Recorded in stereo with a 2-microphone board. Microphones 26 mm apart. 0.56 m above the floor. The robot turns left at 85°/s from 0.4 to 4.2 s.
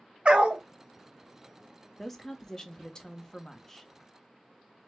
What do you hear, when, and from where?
0.2 s a dog barking: 40° right (ahead or behind), 0.7 m; by 0.6 s 55° right (ahead or behind), 0.7 m
2.0 s a woman speaking: centre (ahead or behind), 0.7 m; by 3.9 s 5° left (ahead or behind), 0.7 m